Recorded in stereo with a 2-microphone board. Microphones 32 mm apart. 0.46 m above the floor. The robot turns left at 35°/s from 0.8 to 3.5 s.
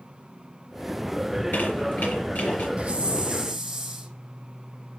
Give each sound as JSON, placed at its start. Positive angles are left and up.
{"t": 1.3, "sound": "a squeak", "azimuth_deg": 100, "distance_m": 5.0}
{"t": 2.8, "sound": "a hiss", "side_deg": -40, "distance_m": 4.5}